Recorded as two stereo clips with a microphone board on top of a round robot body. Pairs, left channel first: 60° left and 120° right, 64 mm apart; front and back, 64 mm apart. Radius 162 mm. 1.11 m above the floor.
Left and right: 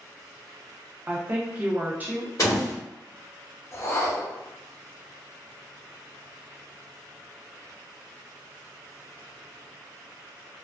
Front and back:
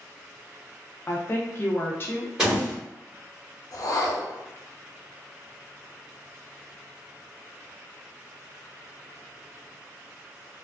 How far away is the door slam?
About 1.1 m.